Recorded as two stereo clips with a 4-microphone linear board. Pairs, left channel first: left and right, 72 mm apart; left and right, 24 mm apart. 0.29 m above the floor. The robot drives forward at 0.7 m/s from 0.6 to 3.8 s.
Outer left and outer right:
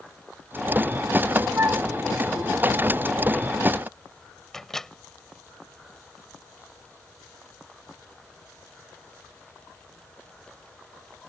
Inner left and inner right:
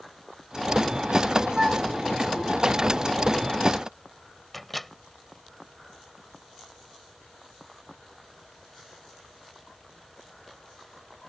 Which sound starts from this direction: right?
A flute, at 1.6 s.